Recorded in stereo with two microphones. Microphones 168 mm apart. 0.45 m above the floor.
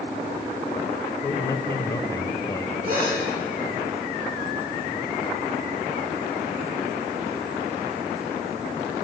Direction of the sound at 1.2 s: 20° left (ahead or behind).